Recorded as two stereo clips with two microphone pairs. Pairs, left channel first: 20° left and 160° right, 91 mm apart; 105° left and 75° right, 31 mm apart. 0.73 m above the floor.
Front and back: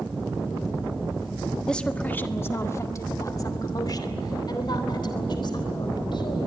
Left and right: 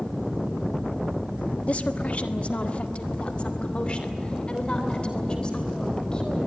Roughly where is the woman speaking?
Left.